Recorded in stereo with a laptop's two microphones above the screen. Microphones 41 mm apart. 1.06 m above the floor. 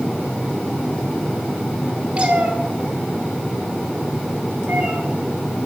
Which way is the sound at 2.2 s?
30° right (ahead or behind).